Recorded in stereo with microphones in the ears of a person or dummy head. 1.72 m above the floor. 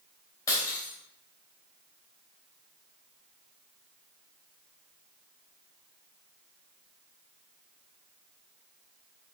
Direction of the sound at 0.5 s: 20° left (ahead or behind).